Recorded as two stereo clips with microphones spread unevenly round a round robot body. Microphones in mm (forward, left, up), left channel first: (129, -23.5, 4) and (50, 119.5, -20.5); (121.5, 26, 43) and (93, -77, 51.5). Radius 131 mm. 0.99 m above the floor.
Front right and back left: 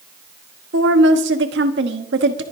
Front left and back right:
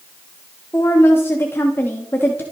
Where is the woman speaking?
155° left, 1.1 m.